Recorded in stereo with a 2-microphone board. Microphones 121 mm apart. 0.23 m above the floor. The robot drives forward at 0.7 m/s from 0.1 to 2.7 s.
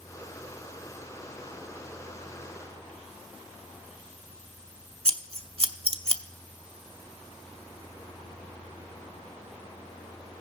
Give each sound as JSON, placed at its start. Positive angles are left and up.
{"t": 5.0, "sound": "scissors", "side_deg": -50, "distance_m": 0.5}